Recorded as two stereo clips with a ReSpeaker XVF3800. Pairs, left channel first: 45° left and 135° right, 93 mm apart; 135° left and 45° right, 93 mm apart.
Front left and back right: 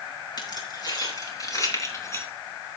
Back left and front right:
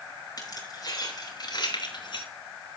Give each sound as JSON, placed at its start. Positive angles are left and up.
{"t": 0.4, "sound": "keys jangling", "azimuth_deg": 85, "distance_m": 4.0}